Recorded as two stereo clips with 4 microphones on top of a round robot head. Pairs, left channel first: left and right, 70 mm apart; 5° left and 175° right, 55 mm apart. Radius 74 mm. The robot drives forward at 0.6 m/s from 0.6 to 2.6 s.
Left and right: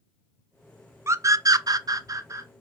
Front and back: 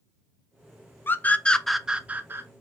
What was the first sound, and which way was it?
A scream, 45° right.